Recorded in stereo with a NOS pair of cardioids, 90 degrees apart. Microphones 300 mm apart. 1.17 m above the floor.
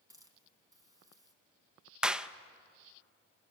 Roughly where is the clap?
Ahead.